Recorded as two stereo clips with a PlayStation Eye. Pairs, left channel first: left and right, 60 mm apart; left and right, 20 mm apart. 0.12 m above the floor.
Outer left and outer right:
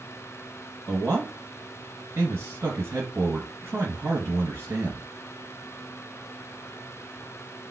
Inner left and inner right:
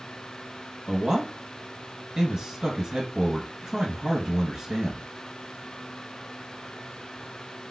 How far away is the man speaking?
About 1.7 m.